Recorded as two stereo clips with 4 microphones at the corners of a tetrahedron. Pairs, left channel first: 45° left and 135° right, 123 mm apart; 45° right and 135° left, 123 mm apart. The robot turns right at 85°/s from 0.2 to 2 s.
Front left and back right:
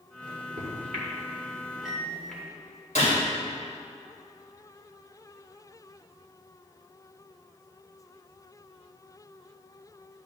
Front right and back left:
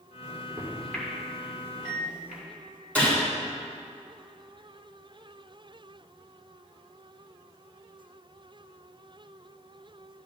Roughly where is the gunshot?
Ahead left.